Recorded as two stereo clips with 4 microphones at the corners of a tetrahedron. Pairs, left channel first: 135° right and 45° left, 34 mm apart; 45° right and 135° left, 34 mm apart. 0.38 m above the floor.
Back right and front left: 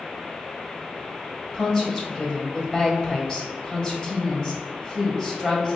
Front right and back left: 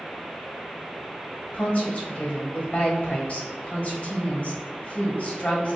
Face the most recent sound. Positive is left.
turn(degrees=-80)